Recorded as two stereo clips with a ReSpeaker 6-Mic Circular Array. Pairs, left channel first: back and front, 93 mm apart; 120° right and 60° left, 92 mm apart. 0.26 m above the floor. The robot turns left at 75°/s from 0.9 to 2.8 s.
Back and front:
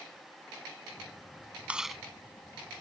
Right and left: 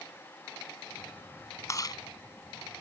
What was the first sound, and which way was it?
Chewing, 70° right.